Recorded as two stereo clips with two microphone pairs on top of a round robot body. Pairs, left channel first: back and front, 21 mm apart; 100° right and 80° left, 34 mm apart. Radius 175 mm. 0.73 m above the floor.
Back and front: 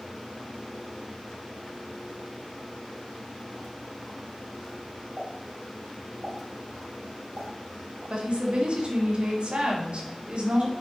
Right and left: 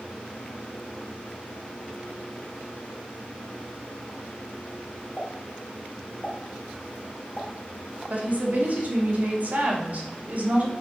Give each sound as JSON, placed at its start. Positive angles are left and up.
{"t": 5.2, "sound": "a pop", "azimuth_deg": -25, "distance_m": 2.0}
{"t": 8.1, "sound": "a woman speaking", "azimuth_deg": 35, "distance_m": 2.5}